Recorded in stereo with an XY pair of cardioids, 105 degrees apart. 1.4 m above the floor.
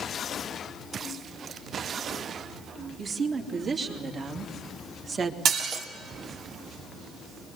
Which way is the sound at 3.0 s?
50° right.